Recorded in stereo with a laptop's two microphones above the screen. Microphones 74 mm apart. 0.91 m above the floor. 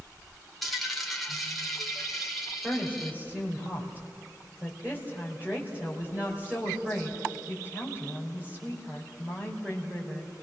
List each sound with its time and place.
0.6 s a dropped coin: centre (ahead or behind), 1.7 m
2.6 s a woman speaking: 20° right (ahead or behind), 4 m